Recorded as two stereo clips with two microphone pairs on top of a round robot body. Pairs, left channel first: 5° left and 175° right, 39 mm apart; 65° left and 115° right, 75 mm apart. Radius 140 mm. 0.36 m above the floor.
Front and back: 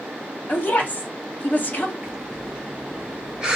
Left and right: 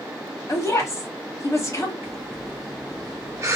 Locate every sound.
0.5 s a woman speaking: 25° left, 1.6 m
2.0 s breathing: 115° right, 1.2 m